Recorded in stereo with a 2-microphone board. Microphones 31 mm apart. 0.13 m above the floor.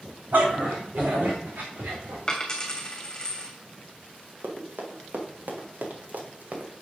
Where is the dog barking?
65° right (ahead or behind), 4.5 m; by 2.2 s 80° right, 4.5 m.